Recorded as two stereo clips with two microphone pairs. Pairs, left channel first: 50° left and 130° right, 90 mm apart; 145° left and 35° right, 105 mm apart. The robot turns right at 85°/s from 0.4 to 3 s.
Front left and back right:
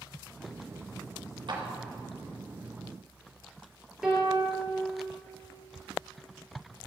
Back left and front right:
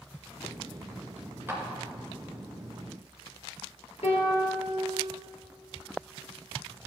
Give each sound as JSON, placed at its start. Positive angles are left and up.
{"t": 1.5, "sound": "a clap", "azimuth_deg": -105, "distance_m": 2.5}
{"t": 4.0, "sound": "a piano", "azimuth_deg": 145, "distance_m": 3.0}